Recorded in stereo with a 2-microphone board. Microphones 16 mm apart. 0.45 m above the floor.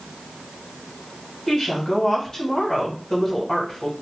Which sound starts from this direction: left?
A woman speaking, at 1.5 s.